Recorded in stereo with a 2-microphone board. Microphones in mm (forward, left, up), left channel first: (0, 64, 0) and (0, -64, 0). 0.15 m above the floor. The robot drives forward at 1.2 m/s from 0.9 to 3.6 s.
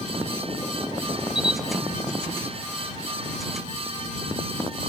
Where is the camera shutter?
5° right (ahead or behind), 1.1 m.